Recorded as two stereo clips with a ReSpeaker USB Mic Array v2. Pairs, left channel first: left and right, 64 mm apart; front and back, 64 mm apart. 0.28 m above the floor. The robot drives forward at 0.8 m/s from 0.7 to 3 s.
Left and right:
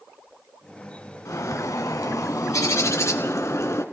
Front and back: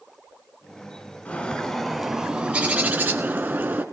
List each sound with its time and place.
1.2 s a bird: 65° left, 1.3 m; by 3.8 s 130° left, 1.5 m